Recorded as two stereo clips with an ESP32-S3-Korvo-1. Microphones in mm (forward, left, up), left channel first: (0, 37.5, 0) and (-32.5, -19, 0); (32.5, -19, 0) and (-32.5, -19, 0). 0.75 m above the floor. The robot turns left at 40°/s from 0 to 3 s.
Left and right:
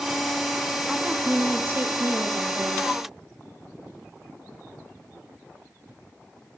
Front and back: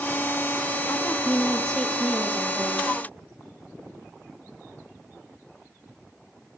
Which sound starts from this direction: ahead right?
A woman speaking, at 0.9 s.